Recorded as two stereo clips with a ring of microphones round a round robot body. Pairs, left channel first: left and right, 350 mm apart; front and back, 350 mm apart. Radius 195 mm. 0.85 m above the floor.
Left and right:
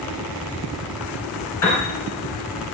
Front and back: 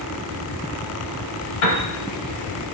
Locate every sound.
1.6 s a piano: 10° left, 1.1 m